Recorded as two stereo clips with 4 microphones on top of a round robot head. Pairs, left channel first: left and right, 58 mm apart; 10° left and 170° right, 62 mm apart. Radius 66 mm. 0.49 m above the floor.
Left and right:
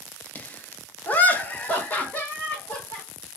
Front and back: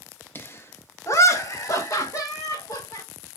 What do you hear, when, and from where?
0.3 s laughter: 40° left, 0.9 m; by 3.0 s 25° left, 2 m